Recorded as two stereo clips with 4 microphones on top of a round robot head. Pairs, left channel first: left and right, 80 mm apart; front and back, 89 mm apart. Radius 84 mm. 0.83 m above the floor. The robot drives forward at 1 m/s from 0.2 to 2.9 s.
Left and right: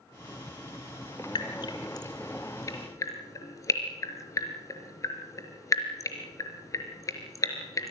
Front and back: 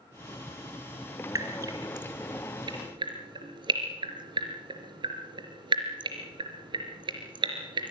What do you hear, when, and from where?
1.4 s dripping: 125° left, 3 m; by 7.9 s 140° left, 4 m